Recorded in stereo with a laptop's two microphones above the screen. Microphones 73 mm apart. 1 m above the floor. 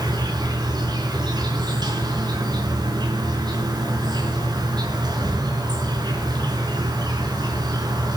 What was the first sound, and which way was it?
An insect, 75° right (ahead or behind).